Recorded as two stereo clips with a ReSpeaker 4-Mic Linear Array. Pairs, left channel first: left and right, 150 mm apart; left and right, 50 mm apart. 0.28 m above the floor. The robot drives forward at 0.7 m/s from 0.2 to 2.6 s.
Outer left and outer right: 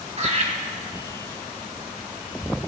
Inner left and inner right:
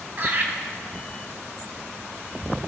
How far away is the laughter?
About 1.5 m.